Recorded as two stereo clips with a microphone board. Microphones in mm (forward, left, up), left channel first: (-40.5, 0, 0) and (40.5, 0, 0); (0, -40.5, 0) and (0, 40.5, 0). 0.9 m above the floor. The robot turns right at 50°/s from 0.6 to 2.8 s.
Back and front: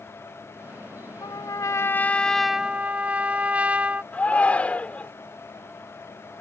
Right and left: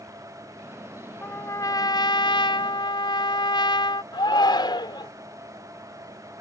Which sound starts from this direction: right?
A shout, at 4.1 s.